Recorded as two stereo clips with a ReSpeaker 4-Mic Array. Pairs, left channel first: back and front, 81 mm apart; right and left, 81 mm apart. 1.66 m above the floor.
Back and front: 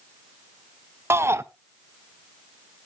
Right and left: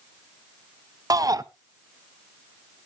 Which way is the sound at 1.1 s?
55° left.